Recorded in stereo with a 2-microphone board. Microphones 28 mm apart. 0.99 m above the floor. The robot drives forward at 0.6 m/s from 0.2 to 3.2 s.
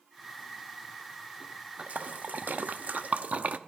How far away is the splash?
About 0.8 m.